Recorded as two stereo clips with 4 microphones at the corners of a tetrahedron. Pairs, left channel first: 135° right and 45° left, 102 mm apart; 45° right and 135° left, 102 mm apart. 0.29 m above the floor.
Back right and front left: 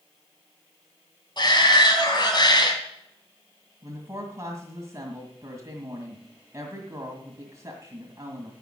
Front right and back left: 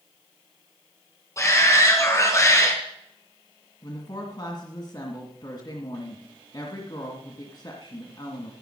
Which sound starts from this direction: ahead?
A woman speaking, at 3.8 s.